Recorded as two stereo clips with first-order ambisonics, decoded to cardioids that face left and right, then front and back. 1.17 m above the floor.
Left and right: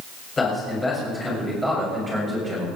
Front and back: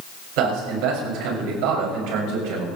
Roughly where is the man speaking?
Behind.